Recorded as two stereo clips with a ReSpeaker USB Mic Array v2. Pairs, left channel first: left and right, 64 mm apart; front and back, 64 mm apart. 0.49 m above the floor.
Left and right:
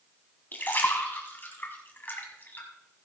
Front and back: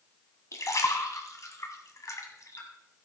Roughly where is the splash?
Ahead left.